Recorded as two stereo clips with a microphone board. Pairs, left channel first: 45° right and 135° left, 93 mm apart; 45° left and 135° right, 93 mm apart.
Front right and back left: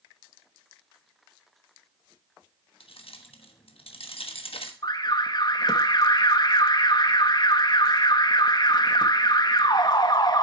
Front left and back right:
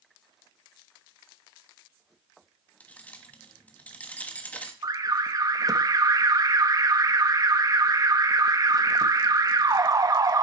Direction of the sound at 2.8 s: 30° right.